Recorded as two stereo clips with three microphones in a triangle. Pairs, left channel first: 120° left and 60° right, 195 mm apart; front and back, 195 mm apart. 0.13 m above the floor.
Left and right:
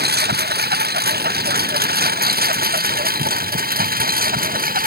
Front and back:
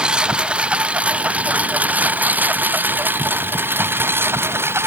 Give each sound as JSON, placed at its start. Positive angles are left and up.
{"t": 0.0, "sound": "a lawn mower", "azimuth_deg": -95}